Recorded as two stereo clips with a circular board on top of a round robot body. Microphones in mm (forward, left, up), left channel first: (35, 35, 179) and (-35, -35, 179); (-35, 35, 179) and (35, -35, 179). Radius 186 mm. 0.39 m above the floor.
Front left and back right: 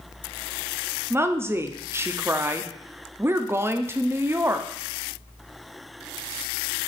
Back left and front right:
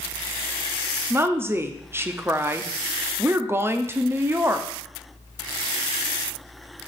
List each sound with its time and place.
1.1 s a woman speaking: 90° right, 0.8 m